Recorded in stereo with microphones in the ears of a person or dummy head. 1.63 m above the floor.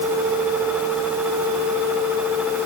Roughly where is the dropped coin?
I don't hear a dropped coin.